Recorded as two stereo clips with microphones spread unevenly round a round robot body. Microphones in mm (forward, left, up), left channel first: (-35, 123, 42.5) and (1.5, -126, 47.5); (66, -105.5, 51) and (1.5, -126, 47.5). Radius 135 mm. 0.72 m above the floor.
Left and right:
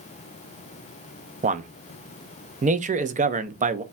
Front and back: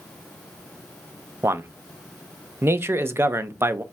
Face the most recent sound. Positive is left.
turn(degrees=-130)